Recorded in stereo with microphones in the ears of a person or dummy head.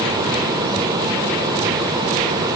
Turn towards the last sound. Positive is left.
No sound to turn to.